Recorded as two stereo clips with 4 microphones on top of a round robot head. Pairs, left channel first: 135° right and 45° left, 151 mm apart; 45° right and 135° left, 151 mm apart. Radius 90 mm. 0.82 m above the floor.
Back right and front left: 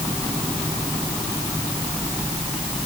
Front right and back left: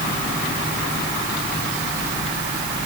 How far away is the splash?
No splash in this recording.